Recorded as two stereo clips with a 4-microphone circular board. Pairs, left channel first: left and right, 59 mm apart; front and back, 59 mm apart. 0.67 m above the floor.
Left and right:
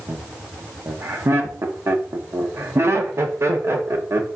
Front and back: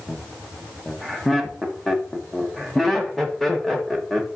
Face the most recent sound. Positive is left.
turn(degrees=-85)